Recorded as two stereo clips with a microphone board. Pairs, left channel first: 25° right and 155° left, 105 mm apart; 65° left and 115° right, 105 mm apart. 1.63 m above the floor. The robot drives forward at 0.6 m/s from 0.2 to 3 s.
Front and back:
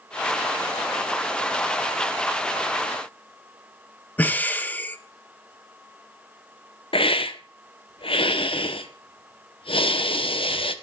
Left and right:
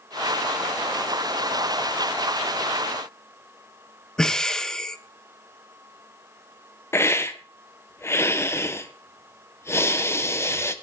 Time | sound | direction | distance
4.2 | breathing | straight ahead | 1.1 m
6.9 | a hiss | 5° left | 1.3 m